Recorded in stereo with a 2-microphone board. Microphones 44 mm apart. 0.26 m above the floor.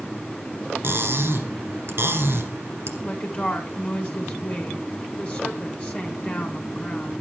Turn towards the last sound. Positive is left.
turn(degrees=20)  # may be behind; listen again after turning